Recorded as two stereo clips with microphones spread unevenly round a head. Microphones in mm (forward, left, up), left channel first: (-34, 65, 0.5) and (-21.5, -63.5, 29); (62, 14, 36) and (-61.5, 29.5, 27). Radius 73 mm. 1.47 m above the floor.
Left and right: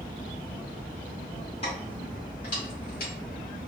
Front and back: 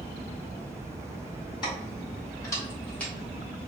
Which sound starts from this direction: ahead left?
Keys jangling, at 1.6 s.